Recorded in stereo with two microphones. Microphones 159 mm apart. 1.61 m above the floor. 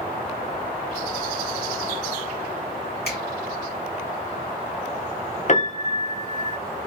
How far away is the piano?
About 0.8 m.